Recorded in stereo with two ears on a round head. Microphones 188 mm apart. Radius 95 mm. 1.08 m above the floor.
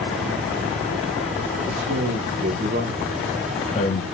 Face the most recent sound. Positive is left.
turn(degrees=45)  # may be behind; listen again after turning